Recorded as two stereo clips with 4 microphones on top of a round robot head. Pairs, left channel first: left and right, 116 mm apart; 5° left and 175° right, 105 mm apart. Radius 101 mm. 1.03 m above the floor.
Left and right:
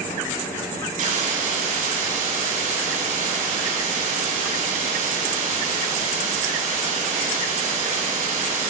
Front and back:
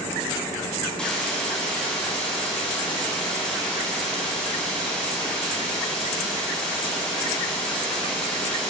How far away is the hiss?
About 6 m.